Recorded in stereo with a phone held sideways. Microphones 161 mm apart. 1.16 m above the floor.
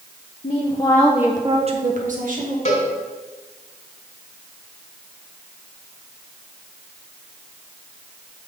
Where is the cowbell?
45° left (ahead or behind), 1.8 m.